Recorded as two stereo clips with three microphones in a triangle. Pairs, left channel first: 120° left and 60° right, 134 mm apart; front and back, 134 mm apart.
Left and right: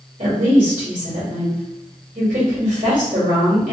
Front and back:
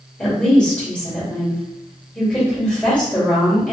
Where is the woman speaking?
85° right, 1.9 m.